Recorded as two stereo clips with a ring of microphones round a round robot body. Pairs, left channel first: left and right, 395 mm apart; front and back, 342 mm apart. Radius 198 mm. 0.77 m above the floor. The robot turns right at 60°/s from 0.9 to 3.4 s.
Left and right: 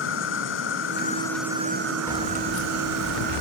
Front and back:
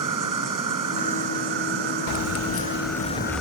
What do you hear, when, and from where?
0.0 s an insect: 150° left; by 3.4 s 60° right
2.1 s keys jangling: 10° left; by 3.4 s 90° left